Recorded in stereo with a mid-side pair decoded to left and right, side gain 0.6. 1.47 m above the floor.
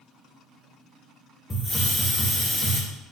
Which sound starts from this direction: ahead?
A hiss, at 1.5 s.